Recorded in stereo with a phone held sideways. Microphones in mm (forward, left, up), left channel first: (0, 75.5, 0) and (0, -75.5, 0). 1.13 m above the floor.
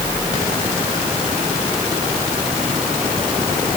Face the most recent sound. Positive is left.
No sound to turn to.